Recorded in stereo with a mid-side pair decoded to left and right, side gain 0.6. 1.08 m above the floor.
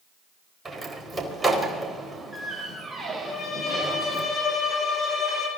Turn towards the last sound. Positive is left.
turn(degrees=40)